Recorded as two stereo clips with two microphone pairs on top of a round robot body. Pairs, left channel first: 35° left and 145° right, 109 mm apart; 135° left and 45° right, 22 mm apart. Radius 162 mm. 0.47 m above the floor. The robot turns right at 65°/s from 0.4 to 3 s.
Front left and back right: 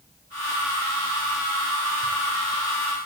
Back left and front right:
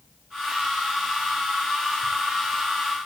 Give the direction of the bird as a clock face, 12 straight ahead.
I don't hear a bird.